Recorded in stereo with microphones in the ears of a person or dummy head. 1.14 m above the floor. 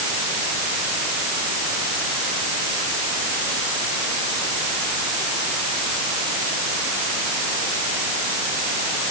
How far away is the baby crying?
No baby crying in this recording.